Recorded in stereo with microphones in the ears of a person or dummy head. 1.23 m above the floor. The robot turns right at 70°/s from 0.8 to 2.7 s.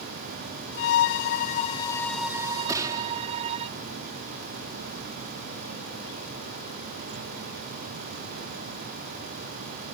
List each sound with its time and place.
0.8 s a violin: 85° left; by 3.7 s 140° right
2.7 s a gunshot: 15° right (ahead or behind)